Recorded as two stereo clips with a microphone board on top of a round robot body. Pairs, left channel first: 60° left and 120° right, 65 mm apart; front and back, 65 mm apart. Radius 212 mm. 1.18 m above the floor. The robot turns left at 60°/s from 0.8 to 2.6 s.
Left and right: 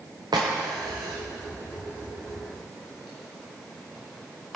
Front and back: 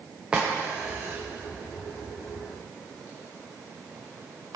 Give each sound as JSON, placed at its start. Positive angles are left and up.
{"t": 0.3, "sound": "a crack", "azimuth_deg": -105, "distance_m": 0.5}